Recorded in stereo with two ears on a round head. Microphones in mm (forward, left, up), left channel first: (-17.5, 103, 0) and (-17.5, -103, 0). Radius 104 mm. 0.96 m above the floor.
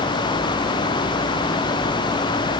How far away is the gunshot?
No gunshot in this recording.